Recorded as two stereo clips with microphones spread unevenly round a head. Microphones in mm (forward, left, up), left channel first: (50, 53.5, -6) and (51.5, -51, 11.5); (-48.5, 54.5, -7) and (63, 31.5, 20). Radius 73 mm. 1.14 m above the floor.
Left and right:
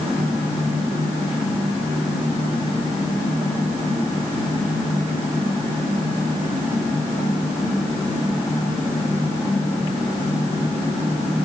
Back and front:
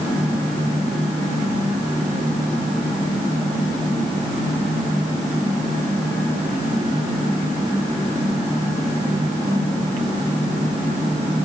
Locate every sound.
Only background noise.